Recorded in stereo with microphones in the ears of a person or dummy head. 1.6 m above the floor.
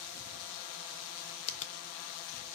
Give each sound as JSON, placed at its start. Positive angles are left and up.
{"t": 1.5, "sound": "a finger snap", "side_deg": 40, "distance_m": 0.7}